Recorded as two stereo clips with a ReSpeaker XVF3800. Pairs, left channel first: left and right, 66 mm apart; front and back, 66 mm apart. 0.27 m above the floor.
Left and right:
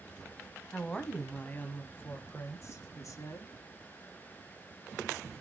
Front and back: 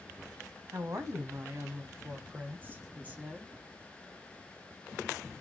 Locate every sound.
0.7 s a woman speaking: 170° left, 1.5 m; by 3.5 s 110° left, 2 m